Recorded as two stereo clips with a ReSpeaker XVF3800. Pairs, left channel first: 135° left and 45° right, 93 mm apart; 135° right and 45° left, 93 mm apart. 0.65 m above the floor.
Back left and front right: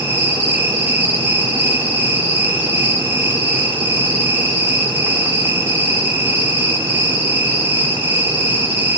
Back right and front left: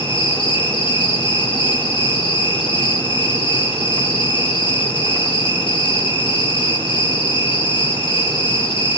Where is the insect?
110° right, 8.5 m.